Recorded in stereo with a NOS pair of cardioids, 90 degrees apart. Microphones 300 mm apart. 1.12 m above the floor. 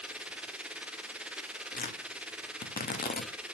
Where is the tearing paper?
30° left, 2 m.